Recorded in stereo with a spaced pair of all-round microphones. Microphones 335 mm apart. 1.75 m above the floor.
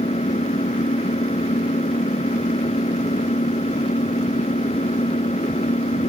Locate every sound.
0.0 s an engine running: 20° left (ahead or behind)